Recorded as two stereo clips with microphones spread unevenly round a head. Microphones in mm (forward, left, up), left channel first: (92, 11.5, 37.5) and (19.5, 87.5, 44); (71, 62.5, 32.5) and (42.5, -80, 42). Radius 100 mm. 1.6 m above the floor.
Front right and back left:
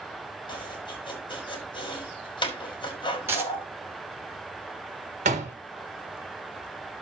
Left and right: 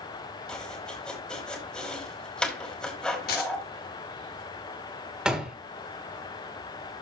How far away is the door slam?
About 1.3 m.